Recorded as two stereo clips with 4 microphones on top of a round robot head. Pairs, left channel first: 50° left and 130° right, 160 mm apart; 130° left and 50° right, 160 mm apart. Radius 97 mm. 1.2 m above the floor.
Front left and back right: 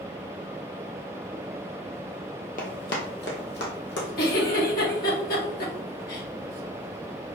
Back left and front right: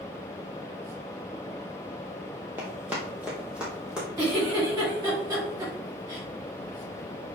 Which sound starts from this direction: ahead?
A giggle, at 4.2 s.